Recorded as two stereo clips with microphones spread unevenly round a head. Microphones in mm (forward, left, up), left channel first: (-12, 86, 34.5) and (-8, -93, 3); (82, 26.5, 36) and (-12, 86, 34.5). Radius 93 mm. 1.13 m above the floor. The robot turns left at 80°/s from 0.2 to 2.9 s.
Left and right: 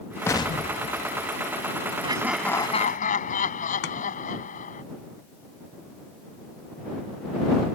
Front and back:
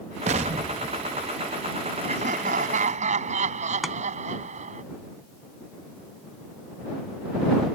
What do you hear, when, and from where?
0.3 s an explosion: 160° left; by 1.7 s 45° left
2.0 s laughter: 150° right; by 4.8 s 140° left
3.8 s chopping: 60° left